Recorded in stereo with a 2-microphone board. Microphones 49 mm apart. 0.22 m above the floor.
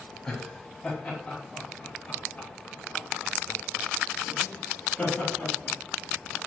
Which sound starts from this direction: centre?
Laughter, at 0.3 s.